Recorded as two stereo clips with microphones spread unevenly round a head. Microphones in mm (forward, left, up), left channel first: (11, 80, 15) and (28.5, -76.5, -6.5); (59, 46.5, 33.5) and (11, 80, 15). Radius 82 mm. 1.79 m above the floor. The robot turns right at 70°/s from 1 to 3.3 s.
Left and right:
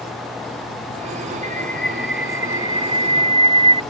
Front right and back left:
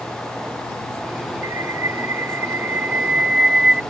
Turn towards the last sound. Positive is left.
turn(degrees=-100)